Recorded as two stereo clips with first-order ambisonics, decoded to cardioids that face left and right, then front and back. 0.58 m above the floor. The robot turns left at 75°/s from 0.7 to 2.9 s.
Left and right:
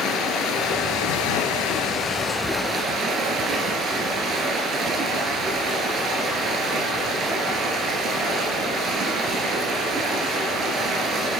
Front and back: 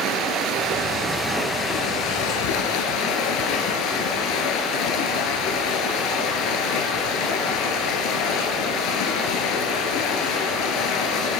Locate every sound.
0.0 s running water: 135° left, 2.5 m; by 11.4 s 30° right, 2.5 m